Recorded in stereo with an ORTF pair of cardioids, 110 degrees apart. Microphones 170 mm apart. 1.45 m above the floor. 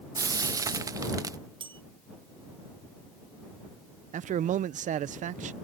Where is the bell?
30° right.